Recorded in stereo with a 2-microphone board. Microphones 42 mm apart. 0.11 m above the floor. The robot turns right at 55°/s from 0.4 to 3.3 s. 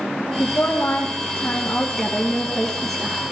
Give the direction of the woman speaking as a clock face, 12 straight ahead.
10 o'clock.